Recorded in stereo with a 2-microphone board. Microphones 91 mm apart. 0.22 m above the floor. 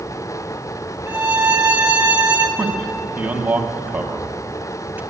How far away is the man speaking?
About 0.9 m.